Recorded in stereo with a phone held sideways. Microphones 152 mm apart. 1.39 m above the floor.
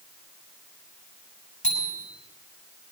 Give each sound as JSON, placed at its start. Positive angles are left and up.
{"t": 1.6, "sound": "a bicycle bell", "side_deg": 50, "distance_m": 7.5}